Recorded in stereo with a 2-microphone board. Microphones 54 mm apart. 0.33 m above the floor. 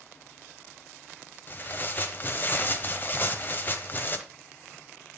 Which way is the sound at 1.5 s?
35° left (ahead or behind).